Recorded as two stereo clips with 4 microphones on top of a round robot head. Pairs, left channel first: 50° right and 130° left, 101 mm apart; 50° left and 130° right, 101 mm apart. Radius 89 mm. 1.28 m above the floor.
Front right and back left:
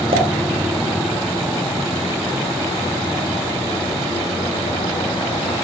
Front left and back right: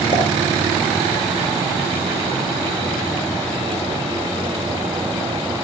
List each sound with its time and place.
0.1 s a pop: 95° left, 3.5 m